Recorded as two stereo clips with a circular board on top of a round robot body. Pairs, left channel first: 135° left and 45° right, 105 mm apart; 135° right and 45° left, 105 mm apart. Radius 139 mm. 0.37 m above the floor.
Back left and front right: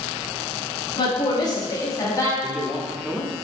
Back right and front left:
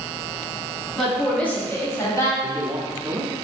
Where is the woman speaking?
135° left, 1.4 m; by 2.3 s 175° right, 1.4 m.